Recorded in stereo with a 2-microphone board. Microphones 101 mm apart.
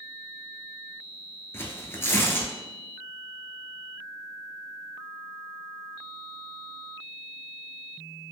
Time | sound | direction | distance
1.5 | tearing paper | 25° left (ahead or behind) | 0.6 m